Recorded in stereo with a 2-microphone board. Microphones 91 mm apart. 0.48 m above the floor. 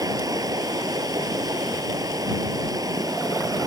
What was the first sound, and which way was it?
Running water, 45° right (ahead or behind).